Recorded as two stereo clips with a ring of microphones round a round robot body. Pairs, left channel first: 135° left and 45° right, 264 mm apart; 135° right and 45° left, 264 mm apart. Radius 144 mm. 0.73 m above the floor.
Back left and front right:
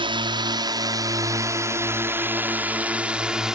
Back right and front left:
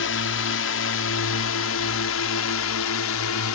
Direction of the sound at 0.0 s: 115° right.